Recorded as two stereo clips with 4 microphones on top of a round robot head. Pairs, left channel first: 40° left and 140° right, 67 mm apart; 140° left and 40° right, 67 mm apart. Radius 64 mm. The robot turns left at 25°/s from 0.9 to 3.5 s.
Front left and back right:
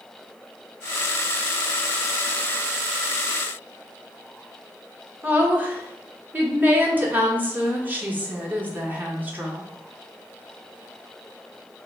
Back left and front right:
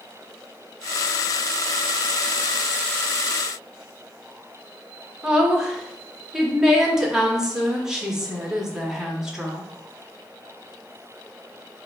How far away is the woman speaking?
About 1.0 m.